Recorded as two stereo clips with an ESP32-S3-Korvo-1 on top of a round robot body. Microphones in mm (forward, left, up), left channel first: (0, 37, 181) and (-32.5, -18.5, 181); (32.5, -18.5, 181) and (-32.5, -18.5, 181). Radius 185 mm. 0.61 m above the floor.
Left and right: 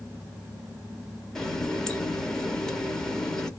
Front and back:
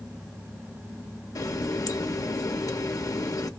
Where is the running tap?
20° right, 1.2 m.